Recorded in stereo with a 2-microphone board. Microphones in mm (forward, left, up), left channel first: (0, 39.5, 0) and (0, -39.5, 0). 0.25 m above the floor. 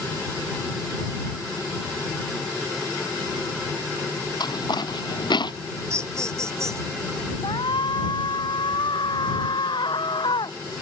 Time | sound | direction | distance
4.4 | footsteps | 60° left (ahead or behind) | ?
5.9 | laughter | 35° right (ahead or behind) | ?
7.4 | a shout | 80° left | ?